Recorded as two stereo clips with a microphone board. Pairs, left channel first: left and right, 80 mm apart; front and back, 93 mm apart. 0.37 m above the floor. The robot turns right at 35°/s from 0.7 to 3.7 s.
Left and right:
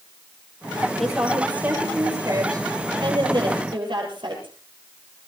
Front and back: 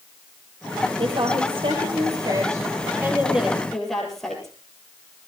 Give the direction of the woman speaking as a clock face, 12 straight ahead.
6 o'clock.